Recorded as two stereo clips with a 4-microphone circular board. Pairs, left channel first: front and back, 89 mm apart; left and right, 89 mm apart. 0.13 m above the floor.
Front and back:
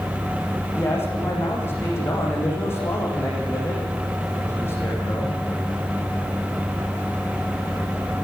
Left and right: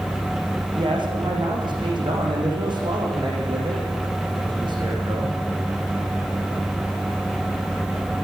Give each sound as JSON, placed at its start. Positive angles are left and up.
{"t": 0.8, "sound": "a man speaking", "azimuth_deg": -65, "distance_m": 7.5}